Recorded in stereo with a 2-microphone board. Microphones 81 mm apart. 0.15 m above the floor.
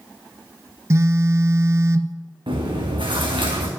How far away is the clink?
No clink in this recording.